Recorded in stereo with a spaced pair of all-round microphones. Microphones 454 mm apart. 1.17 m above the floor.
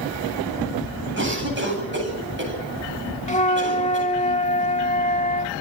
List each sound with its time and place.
1.2 s a cough: 25° right (ahead or behind), 9.5 m
3.3 s a flute: 15° left (ahead or behind), 1.0 m